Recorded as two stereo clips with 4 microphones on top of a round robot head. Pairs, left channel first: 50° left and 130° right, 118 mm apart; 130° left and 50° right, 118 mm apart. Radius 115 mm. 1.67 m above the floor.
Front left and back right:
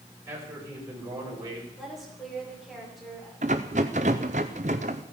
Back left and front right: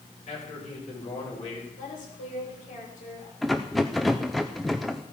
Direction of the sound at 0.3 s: 160° left.